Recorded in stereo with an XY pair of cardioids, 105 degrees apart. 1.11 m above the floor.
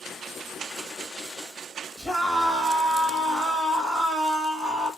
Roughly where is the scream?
Ahead.